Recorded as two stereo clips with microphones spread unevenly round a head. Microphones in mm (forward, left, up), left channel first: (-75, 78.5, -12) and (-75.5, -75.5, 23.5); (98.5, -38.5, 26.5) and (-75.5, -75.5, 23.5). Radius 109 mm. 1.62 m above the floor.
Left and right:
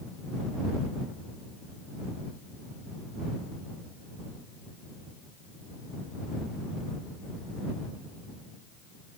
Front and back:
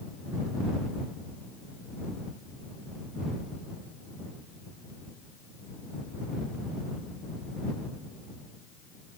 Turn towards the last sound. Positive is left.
No sound to turn to.